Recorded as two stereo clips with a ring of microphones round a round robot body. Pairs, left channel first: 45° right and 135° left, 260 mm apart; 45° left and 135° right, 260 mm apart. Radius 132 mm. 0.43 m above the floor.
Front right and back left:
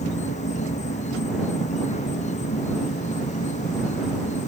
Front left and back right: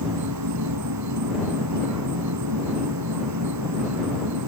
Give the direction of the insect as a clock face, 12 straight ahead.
4 o'clock.